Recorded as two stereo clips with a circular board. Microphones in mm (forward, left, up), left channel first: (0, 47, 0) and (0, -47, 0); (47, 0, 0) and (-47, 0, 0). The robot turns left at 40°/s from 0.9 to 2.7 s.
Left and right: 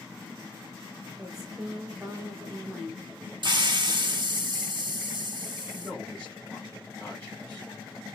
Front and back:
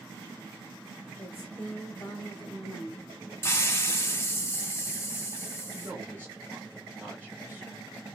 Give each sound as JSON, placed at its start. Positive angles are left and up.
{"t": 1.2, "sound": "a woman speaking", "azimuth_deg": -10, "distance_m": 1.0}
{"t": 3.4, "sound": "a hiss", "azimuth_deg": -60, "distance_m": 0.6}
{"t": 5.8, "sound": "a man speaking", "azimuth_deg": 145, "distance_m": 1.6}